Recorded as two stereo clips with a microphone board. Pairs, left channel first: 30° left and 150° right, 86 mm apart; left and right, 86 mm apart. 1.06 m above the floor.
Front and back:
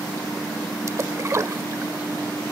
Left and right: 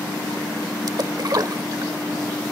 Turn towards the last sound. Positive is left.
turn(degrees=-110)